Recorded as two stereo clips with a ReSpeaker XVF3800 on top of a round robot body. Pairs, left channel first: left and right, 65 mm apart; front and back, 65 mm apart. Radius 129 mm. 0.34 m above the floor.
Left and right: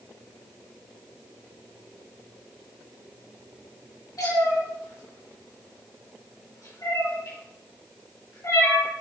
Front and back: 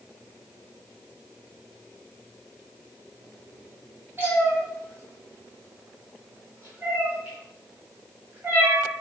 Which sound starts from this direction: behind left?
A cat meowing, at 4.2 s.